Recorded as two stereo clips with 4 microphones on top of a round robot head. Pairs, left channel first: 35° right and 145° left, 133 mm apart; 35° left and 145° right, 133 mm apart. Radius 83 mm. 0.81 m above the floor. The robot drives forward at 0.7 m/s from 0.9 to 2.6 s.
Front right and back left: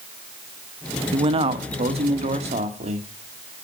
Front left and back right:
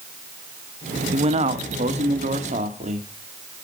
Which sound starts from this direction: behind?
A man speaking, at 1.1 s.